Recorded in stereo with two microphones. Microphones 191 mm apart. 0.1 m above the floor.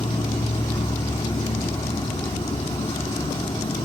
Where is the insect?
25° left (ahead or behind), 1.6 m.